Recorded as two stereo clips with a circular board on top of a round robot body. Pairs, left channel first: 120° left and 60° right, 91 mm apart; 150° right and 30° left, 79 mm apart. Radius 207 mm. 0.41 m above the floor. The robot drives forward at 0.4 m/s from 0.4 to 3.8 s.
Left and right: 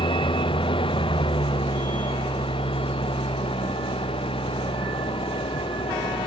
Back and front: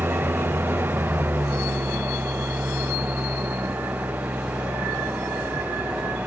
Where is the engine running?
95° left; by 6.3 s 100° left.